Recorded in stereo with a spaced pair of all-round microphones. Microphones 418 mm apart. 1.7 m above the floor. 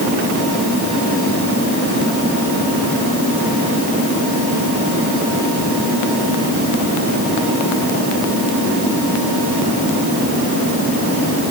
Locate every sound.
Only background noise.